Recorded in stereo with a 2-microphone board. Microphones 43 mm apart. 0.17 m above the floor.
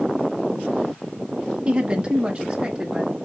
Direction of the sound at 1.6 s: 30° right (ahead or behind).